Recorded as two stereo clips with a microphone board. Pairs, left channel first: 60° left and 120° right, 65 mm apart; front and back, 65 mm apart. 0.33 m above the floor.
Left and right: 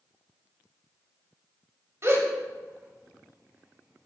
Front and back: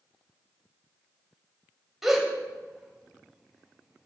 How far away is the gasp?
About 1.2 m.